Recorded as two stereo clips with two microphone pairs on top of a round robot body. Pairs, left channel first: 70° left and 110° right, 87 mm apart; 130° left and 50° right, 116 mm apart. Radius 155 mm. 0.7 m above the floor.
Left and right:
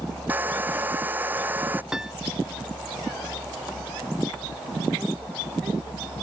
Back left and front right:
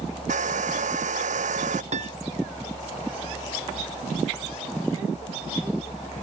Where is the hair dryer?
35° right.